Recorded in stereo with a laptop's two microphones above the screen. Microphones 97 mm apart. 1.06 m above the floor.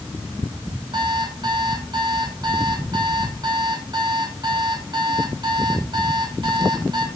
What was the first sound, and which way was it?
An alarm clock, 50° right (ahead or behind).